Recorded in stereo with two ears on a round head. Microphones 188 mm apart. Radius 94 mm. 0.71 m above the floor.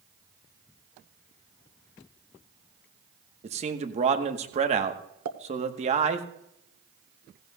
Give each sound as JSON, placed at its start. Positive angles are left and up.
{"t": 3.4, "sound": "a man speaking", "side_deg": -30, "distance_m": 1.1}
{"t": 5.2, "sound": "a pop", "side_deg": -85, "distance_m": 1.1}